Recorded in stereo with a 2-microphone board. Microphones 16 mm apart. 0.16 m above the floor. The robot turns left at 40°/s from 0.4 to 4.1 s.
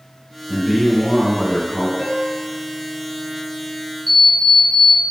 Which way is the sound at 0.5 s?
Centre (ahead or behind).